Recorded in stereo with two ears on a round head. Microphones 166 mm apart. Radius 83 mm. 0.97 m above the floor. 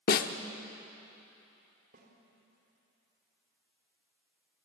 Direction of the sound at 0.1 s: 50° left (ahead or behind).